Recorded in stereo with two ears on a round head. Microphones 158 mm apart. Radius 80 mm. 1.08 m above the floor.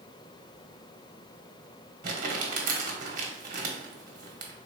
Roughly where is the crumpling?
Right.